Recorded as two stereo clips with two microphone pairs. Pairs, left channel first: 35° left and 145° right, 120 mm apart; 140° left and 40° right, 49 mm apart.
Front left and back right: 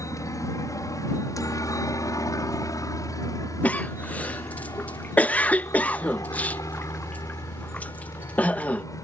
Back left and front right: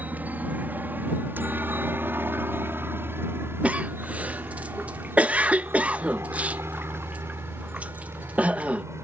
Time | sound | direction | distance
0.0 | a helicopter | 10° right | ?
3.6 | a cough | 20° right | ?